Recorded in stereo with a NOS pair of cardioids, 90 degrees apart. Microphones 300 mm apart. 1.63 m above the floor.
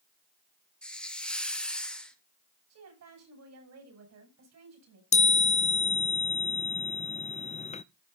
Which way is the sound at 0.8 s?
5° left.